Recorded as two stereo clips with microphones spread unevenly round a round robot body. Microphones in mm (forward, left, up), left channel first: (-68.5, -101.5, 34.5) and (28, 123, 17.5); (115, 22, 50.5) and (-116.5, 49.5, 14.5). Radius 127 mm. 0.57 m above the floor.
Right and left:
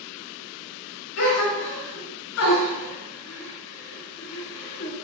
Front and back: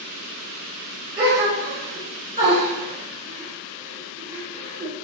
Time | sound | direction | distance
1.2 | a gasp | 120° right | 2.5 m